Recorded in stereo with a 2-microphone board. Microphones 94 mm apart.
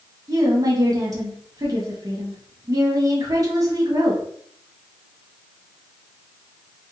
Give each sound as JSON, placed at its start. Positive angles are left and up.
{"t": 0.3, "sound": "a woman speaking", "side_deg": -40, "distance_m": 1.3}